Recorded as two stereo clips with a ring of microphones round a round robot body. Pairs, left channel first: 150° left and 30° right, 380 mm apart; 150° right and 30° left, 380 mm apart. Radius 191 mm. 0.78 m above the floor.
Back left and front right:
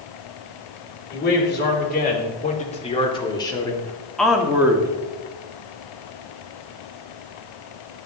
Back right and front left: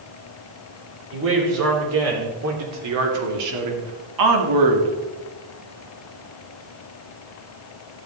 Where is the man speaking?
85° left, 3 m; by 5.0 s 45° left, 1.7 m.